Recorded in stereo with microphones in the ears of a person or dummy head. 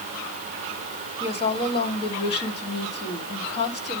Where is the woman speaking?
30° left (ahead or behind), 2.5 m.